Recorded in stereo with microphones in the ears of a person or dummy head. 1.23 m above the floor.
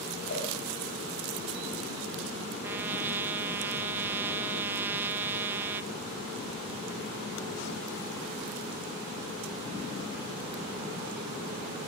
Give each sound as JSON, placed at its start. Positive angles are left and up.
{"t": 0.3, "sound": "a cowbell", "side_deg": 55, "distance_m": 7.0}
{"t": 2.6, "sound": "a trumpet", "side_deg": -15, "distance_m": 0.7}